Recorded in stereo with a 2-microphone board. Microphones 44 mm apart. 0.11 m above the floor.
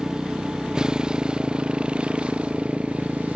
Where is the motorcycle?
15° right (ahead or behind); by 3.4 s 30° right (ahead or behind).